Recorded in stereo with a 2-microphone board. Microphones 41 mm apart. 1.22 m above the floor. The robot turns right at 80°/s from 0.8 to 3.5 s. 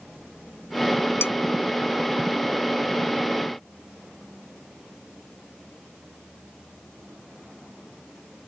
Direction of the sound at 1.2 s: 80° left.